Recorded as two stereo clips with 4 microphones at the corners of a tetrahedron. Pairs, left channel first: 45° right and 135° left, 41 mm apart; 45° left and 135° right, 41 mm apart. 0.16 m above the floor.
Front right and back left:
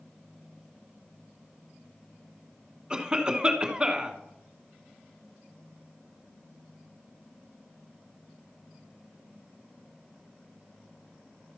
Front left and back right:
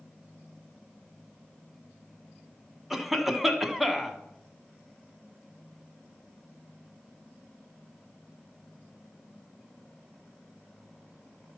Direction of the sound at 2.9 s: 150° left.